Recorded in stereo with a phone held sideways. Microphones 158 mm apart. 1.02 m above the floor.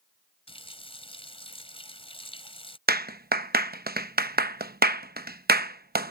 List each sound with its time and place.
0.5 s a running tap: 35° left (ahead or behind)
2.9 s a clap: 75° right (ahead or behind)